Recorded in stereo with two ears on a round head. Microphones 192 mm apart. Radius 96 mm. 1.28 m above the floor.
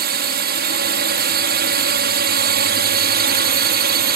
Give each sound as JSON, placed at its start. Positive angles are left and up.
{"t": 0.0, "sound": "a drone", "side_deg": -50}